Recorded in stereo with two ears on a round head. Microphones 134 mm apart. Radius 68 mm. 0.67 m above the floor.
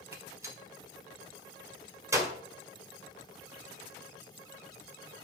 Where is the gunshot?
20° right (ahead or behind), 1.9 m.